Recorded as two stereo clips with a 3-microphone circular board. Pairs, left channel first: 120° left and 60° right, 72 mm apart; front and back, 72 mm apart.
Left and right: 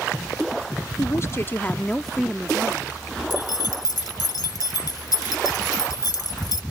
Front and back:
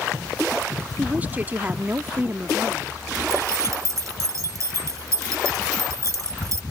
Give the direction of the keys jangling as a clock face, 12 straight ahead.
7 o'clock.